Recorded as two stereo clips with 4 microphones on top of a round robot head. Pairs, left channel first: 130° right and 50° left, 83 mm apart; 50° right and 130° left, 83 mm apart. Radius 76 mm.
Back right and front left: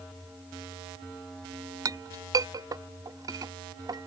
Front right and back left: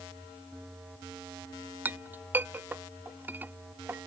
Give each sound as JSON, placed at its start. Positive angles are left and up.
{"t": 1.9, "sound": "a clink", "azimuth_deg": 70}